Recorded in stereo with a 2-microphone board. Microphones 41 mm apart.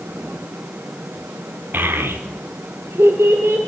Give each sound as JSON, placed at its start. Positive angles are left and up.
{"t": 1.7, "sound": "a child speaking", "side_deg": -50, "distance_m": 1.7}